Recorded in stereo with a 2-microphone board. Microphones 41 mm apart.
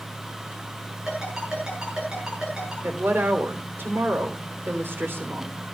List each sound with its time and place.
1.1 s a ringtone: 20° right (ahead or behind), 7 m
2.8 s a woman speaking: 70° right (ahead or behind), 3 m